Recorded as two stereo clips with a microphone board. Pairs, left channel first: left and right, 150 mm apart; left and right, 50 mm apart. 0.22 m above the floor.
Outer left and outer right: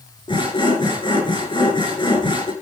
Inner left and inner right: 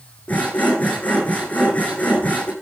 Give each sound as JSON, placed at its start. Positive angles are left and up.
{"t": 0.3, "sound": "sawing", "side_deg": 35, "distance_m": 6.5}